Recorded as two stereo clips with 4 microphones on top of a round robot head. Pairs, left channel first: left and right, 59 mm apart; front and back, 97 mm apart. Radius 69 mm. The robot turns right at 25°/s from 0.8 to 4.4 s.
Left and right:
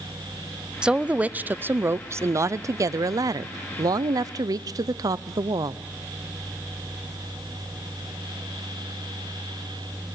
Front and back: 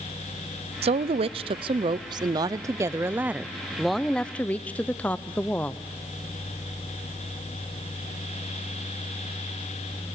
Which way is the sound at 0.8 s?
165° right.